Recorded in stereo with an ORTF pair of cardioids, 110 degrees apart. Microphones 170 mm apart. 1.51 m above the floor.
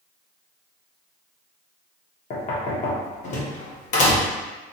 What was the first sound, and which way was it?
Knocking, 50° left.